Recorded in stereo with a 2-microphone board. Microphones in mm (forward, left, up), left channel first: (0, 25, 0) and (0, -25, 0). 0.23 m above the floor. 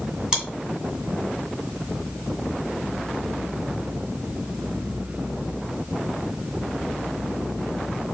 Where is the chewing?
20° right (ahead or behind), 2.0 m.